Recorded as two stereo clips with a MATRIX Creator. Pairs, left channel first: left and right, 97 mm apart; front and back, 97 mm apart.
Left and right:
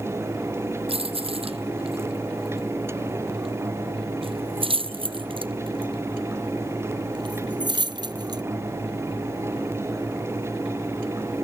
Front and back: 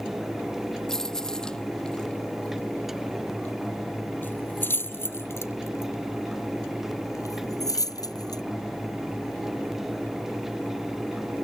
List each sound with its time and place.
0.9 s keys jangling: 85° right; by 8.4 s 45° right